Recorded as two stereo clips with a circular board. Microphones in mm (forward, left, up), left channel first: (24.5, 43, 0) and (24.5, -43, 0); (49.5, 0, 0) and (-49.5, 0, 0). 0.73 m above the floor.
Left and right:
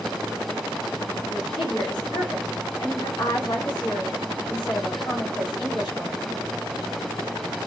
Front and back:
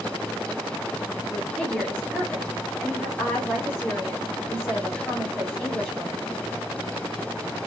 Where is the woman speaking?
75° left, 2.5 m.